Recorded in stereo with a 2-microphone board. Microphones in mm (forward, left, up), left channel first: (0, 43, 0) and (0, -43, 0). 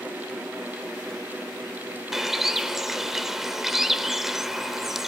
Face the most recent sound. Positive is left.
turn(degrees=-5)  # may be behind; listen again after turning